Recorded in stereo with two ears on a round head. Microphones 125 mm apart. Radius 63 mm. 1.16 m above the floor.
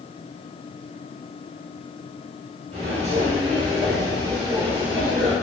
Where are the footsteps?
50° right (ahead or behind), 1.7 m; by 5.3 s 5° right (ahead or behind), 2 m.